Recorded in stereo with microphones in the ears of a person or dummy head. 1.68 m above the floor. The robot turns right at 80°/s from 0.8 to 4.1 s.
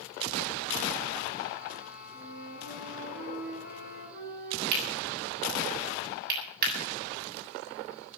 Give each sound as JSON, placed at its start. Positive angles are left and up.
{"t": 2.1, "sound": "a flute", "azimuth_deg": 155, "distance_m": 9.0}
{"t": 4.7, "sound": "cutlery clinking", "side_deg": -55, "distance_m": 7.5}